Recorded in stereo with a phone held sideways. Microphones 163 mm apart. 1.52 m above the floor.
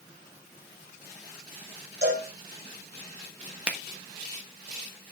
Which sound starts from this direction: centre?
A finger snap, at 3.7 s.